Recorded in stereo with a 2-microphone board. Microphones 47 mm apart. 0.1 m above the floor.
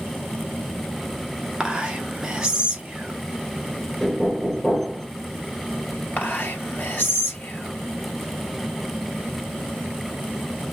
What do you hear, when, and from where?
1.6 s whispering: 15° right (ahead or behind), 1.1 m
4.0 s knocking: 5° left (ahead or behind), 1.4 m
6.2 s whispering: 45° left (ahead or behind), 2.5 m